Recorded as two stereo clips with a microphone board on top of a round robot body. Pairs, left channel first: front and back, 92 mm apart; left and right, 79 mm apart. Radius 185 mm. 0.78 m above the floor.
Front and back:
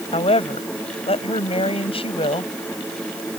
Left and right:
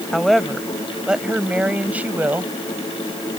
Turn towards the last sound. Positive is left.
turn(degrees=-20)